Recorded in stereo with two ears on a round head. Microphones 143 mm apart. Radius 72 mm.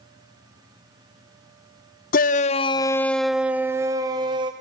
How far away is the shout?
About 0.7 m.